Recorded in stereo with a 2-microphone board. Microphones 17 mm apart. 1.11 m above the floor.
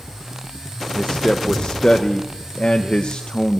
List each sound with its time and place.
0.9 s a man speaking: 70° left (ahead or behind), 0.6 m